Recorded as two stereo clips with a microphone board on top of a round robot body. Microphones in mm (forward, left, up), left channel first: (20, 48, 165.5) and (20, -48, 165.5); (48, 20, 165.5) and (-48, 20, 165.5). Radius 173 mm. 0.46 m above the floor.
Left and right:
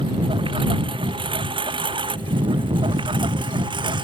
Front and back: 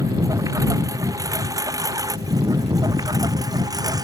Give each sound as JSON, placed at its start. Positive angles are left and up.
{"t": 0.0, "sound": "a lawn mower", "azimuth_deg": -125}